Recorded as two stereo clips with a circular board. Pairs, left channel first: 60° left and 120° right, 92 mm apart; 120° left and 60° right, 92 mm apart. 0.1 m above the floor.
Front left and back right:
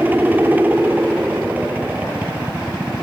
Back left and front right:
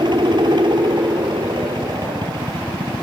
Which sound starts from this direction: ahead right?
A helicopter, at 0.0 s.